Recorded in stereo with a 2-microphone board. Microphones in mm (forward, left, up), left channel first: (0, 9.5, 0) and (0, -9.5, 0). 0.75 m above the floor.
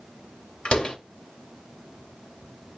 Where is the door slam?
75° left (ahead or behind), 2 m.